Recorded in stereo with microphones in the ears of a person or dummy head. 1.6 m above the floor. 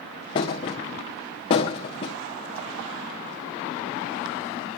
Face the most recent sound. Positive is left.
turn(degrees=25)  # may be behind; listen again after turning